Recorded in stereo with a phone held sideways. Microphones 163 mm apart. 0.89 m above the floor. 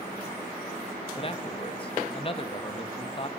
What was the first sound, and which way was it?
A man speaking, 35° left (ahead or behind).